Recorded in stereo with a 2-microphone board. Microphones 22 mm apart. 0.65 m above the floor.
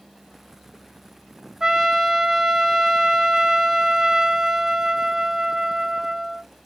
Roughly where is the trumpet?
Right.